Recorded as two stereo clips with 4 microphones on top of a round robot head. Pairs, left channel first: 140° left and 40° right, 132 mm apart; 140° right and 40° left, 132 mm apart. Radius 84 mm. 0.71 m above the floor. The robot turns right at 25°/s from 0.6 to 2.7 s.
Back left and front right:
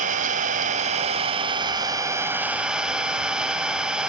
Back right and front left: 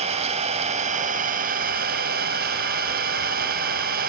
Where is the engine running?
5° right, 1.9 m; by 4.1 s 45° left, 1.9 m.